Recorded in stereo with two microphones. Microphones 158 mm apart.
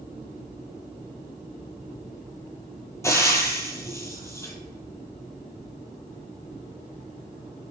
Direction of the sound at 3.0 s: 20° left (ahead or behind).